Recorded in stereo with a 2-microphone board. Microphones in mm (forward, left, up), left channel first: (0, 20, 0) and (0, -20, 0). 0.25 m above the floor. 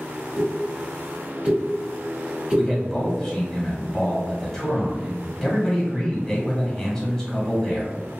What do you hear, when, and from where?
0.4 s a pop: 30° right (ahead or behind), 1.3 m
2.6 s a man speaking: 15° left (ahead or behind), 1.2 m